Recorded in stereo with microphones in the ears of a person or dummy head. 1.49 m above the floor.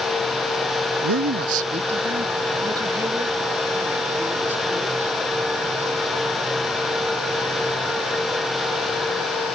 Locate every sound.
1.0 s a man speaking: 85° right; by 5.2 s 10° right (ahead or behind)